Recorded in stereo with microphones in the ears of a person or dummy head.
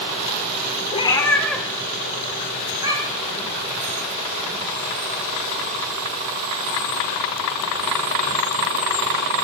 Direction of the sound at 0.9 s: 30° left (ahead or behind).